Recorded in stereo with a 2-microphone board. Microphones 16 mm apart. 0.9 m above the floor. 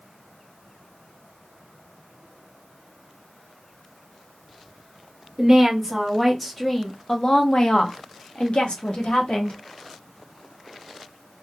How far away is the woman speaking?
About 1.5 m.